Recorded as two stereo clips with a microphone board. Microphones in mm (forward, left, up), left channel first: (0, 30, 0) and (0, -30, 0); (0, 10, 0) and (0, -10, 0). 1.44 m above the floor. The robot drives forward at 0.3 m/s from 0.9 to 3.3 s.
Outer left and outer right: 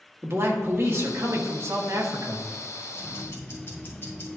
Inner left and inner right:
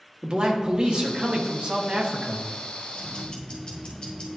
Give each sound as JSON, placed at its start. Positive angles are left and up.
{"t": 0.2, "sound": "a man speaking", "side_deg": -40, "distance_m": 1.4}
{"t": 2.9, "sound": "ticking", "side_deg": 40, "distance_m": 2.0}